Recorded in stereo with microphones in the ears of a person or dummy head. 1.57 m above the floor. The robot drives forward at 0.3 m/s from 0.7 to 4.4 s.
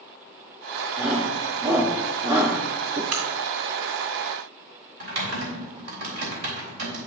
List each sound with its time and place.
1.0 s a shout: 10° right (ahead or behind), 1.2 m; by 3.0 s 20° right (ahead or behind), 0.6 m
3.1 s a crack: 50° right (ahead or behind), 2.0 m
5.0 s typing on a keyboard: 65° right (ahead or behind), 2.5 m